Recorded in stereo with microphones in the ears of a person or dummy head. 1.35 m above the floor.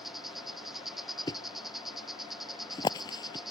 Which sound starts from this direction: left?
A thud, at 1.3 s.